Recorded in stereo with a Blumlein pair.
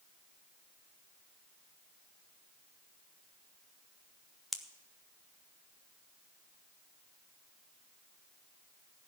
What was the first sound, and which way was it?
A pop, 5° left.